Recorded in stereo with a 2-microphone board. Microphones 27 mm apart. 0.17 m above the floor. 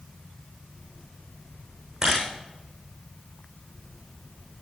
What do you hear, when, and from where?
2.0 s a camera shutter: 20° right (ahead or behind), 7 m